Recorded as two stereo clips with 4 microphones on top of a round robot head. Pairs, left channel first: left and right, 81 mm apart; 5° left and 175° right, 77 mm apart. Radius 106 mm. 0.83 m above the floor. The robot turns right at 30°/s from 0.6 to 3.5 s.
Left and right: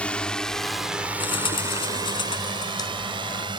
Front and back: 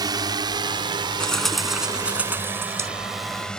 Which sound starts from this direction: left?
A bird, at 1.2 s.